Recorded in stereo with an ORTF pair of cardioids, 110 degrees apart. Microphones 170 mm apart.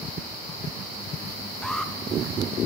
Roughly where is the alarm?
Ahead.